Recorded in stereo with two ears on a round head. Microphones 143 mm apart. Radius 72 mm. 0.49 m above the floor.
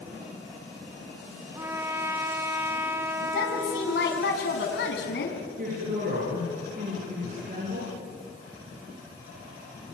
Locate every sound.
1.6 s a trumpet: 15° right (ahead or behind), 1.4 m
3.2 s a woman speaking: 70° left (ahead or behind), 4.5 m
5.6 s a woman speaking: 55° right (ahead or behind), 9.5 m